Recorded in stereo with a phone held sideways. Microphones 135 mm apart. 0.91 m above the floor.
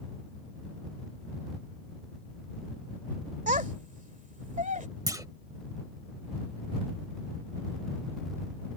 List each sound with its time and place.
3.5 s a child speaking: 70° right (ahead or behind)
5.1 s a clunk: 25° right (ahead or behind)